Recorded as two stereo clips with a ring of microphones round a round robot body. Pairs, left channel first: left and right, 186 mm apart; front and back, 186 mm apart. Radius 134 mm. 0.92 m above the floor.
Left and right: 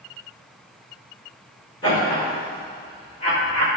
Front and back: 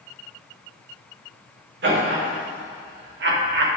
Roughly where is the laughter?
Behind.